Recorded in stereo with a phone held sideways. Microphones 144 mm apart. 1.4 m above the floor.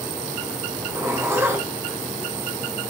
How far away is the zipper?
About 1.7 m.